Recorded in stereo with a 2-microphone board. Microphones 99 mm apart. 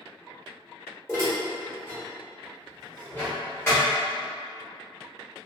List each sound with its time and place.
1.1 s dishes clattering: 25° left (ahead or behind), 1.3 m